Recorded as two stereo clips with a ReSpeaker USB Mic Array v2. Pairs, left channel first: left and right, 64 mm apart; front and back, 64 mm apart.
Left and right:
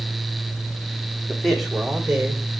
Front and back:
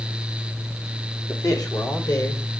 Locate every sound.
1.3 s a man speaking: 5° left, 1.9 m; by 2.5 s 15° right, 2.5 m